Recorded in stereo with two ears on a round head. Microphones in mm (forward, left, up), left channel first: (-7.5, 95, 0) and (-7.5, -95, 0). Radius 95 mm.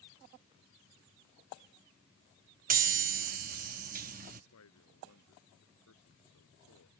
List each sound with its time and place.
2.7 s a chime: 45° right (ahead or behind)
4.5 s a man speaking: 85° left